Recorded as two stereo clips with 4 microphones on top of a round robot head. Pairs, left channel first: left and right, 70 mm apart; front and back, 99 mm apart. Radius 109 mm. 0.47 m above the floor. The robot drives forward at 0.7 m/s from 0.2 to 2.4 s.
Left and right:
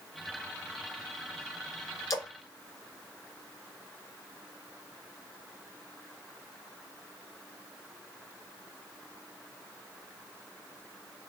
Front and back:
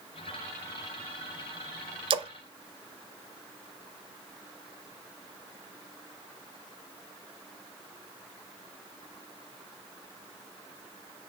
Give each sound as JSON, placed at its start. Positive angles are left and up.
{"t": 2.1, "sound": "a splash", "azimuth_deg": 145, "distance_m": 0.5}